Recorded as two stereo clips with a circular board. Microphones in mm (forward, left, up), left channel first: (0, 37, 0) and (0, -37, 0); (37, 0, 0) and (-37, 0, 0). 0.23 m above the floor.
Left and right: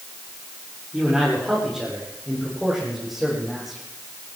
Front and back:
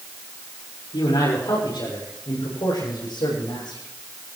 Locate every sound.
0.9 s a man speaking: 5° right, 7.5 m; by 3.8 s straight ahead, 11 m